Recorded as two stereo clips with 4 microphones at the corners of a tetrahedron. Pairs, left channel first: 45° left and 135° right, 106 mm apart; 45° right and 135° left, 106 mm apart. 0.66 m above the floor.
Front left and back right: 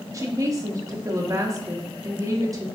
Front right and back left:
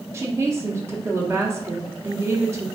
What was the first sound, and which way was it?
A woman speaking, straight behind.